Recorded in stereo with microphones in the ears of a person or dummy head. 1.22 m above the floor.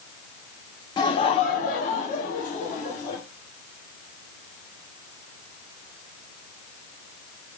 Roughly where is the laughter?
Left.